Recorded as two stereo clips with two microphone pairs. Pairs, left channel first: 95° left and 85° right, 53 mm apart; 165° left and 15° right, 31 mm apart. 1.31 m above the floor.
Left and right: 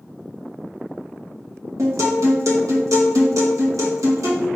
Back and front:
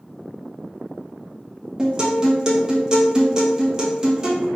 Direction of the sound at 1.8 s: 85° right.